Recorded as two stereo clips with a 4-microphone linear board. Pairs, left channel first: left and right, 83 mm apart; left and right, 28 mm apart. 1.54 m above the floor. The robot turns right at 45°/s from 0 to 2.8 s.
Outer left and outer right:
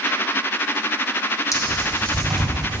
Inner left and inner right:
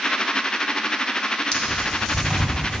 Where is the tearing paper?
40° left (ahead or behind), 1.4 m; by 2.8 s 20° right (ahead or behind), 1.4 m.